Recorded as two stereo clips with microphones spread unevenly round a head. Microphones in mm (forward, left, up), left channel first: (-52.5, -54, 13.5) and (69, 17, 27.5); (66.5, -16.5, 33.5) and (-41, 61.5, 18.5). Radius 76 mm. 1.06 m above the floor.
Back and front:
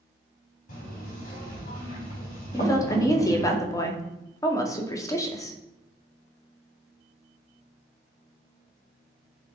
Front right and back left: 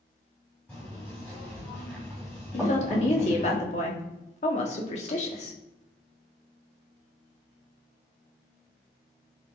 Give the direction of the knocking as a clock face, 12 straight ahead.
4 o'clock.